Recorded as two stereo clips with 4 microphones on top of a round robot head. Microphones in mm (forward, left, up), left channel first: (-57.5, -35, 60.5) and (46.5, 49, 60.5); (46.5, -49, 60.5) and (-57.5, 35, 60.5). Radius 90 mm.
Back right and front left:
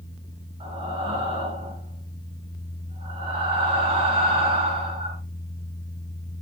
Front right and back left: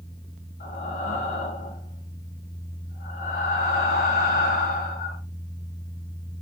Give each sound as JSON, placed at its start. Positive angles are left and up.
{"t": 0.6, "sound": "breathing", "azimuth_deg": -15, "distance_m": 3.5}